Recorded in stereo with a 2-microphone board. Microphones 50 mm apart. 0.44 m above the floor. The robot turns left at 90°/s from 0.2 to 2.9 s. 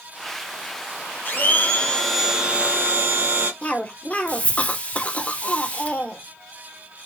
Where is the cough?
30° left (ahead or behind), 0.9 m.